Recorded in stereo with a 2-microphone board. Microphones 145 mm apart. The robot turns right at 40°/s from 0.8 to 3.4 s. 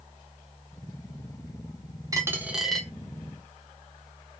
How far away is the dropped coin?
About 1.1 m.